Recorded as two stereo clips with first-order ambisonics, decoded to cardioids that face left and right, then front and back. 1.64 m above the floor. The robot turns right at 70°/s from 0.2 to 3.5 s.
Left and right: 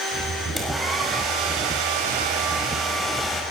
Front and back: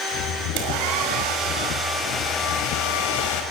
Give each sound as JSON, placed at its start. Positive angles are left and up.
{"t": 0.6, "sound": "a hair dryer", "azimuth_deg": 170, "distance_m": 5.5}